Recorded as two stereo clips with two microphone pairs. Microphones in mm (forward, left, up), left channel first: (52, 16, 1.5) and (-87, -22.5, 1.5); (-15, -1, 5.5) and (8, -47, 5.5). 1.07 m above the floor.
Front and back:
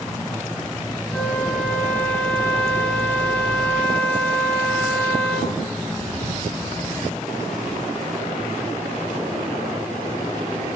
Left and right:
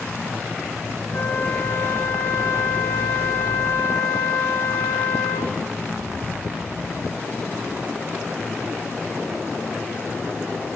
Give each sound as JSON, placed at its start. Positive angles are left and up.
{"t": 1.1, "sound": "a flute", "azimuth_deg": 95, "distance_m": 5.0}